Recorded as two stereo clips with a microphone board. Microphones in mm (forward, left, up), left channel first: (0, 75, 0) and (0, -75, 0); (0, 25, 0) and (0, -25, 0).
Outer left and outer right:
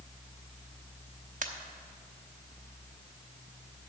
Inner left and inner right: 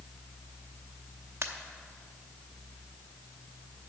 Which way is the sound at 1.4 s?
60° right (ahead or behind).